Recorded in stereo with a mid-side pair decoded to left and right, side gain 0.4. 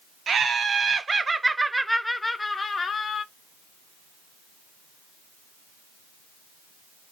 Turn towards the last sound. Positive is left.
turn(degrees=55)